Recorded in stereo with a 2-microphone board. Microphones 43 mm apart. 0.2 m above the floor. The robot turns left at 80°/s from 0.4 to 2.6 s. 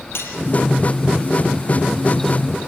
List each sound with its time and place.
0.1 s cutlery clinking: 65° left (ahead or behind), 3 m